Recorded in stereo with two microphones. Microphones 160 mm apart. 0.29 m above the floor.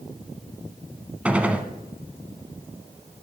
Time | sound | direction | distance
1.2 | a gunshot | 10° right (ahead or behind) | 0.9 m